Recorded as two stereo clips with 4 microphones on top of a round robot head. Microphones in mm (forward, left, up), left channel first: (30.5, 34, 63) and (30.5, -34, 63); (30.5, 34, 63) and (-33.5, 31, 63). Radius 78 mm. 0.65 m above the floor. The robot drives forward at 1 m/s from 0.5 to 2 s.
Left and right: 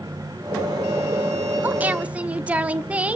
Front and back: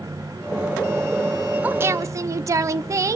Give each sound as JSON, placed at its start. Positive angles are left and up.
{"t": 1.6, "sound": "a woman speaking", "azimuth_deg": -130, "distance_m": 0.6}